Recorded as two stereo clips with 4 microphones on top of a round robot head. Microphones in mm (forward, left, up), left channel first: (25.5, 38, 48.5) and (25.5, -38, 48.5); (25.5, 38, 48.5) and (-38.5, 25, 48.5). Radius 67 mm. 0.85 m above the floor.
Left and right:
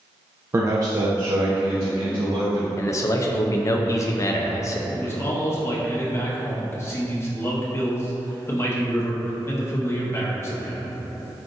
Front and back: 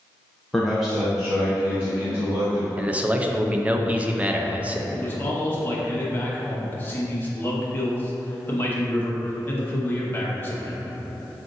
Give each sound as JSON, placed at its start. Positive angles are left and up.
{"t": 0.5, "sound": "a man speaking", "azimuth_deg": -75, "distance_m": 0.7}
{"t": 2.8, "sound": "a man speaking", "azimuth_deg": 125, "distance_m": 0.5}
{"t": 4.9, "sound": "a man speaking", "azimuth_deg": 55, "distance_m": 1.1}